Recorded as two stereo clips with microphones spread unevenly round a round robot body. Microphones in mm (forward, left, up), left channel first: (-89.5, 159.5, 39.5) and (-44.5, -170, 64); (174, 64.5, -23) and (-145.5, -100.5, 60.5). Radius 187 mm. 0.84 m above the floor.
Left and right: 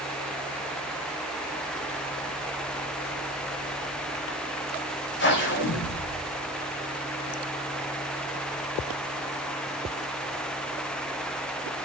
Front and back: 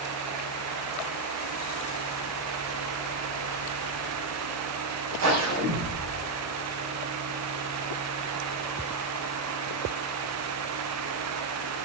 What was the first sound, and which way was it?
A whoosh, 155° left.